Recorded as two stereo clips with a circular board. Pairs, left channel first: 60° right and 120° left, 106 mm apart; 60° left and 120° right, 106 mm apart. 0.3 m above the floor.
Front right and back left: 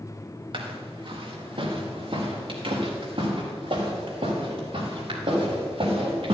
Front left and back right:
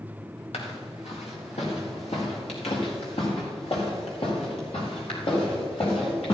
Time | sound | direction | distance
0.5 | footsteps | 80° left | 3 m